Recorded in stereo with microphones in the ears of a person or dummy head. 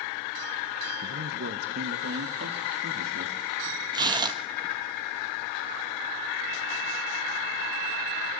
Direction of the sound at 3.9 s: 30° right (ahead or behind).